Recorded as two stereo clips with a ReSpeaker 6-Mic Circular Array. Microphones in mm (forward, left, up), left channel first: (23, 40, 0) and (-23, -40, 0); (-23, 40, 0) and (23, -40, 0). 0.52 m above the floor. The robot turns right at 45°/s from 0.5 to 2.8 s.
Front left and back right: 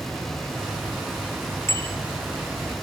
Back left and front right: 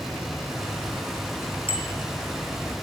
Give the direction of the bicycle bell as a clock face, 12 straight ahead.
8 o'clock.